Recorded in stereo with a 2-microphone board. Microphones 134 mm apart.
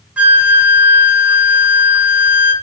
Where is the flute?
10° right (ahead or behind), 0.9 m.